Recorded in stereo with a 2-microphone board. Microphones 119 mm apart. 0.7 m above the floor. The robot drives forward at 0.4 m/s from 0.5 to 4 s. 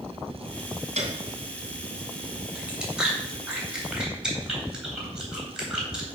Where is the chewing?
10° right (ahead or behind), 2.5 m; by 6.1 s 5° right (ahead or behind), 3.5 m.